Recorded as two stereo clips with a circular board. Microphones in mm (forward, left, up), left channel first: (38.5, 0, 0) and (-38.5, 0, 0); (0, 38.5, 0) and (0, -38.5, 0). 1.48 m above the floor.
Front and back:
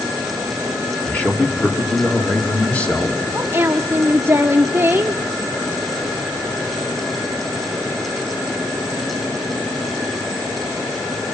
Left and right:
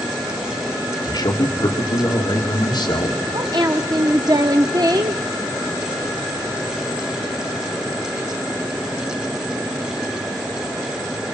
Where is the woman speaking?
120° right, 0.9 m.